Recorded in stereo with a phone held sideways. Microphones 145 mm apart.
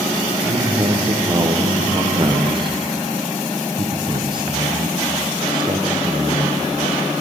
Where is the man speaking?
35° right (ahead or behind), 0.7 m.